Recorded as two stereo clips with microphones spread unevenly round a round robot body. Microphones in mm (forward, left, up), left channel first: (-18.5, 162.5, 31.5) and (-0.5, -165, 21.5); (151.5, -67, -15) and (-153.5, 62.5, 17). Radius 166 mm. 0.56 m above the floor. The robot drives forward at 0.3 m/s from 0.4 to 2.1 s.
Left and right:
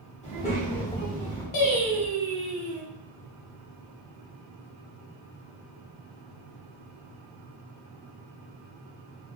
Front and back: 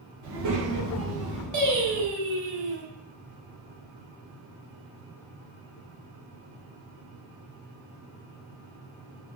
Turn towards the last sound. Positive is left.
turn(degrees=130)